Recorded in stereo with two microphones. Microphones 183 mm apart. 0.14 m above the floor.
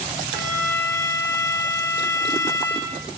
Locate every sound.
0.3 s a violin: 80° left, 5 m